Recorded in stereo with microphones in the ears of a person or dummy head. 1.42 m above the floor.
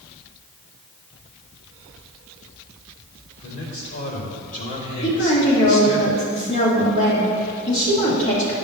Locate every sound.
3.4 s a man speaking: 45° left (ahead or behind), 3 m; by 6.0 s 35° left (ahead or behind), 1.5 m
5.0 s a woman speaking: 35° left (ahead or behind), 2.5 m